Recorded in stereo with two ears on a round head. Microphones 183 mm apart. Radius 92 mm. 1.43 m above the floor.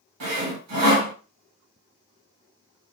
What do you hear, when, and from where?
0.2 s sawing: 90° right, 1.6 m